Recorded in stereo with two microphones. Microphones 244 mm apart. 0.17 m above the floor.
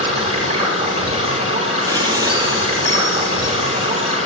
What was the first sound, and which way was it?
Running water, 30° right (ahead or behind).